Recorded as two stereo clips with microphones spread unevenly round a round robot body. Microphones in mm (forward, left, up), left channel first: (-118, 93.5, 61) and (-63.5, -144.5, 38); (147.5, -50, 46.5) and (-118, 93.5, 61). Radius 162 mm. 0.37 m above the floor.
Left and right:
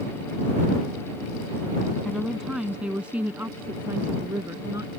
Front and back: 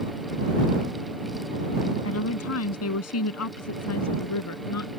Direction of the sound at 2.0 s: 15° left.